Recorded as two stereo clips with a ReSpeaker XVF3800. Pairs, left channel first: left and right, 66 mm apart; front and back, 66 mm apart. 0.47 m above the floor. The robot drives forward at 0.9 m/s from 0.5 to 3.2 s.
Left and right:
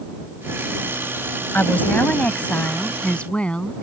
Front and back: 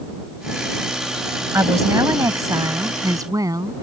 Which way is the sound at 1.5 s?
150° left.